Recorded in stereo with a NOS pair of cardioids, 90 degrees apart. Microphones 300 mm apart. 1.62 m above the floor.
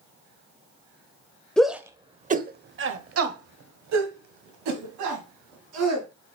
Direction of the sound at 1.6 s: 5° left.